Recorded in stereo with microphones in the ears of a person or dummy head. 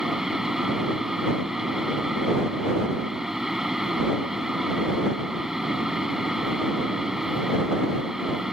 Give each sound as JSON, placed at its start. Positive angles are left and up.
{"t": 0.0, "sound": "a fan", "side_deg": 0}